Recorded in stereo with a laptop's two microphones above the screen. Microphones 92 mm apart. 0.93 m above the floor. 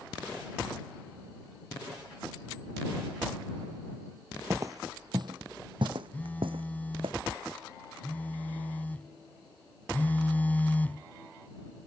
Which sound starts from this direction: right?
Footsteps, at 4.5 s.